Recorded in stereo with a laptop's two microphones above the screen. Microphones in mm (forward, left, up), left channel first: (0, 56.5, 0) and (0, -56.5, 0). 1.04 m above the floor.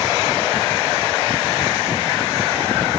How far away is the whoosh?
I don't hear a whoosh.